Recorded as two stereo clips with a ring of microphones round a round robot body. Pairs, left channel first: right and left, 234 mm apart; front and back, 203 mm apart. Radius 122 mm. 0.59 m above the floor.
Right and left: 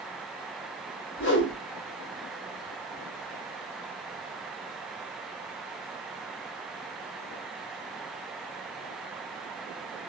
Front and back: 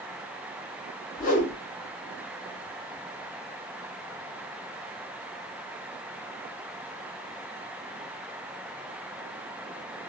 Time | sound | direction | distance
1.2 | a whoosh | 50° right | 0.8 m